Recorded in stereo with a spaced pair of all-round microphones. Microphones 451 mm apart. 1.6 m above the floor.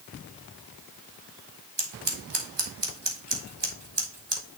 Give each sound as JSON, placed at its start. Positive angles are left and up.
{"t": 1.8, "sound": "scissors", "side_deg": -65, "distance_m": 1.4}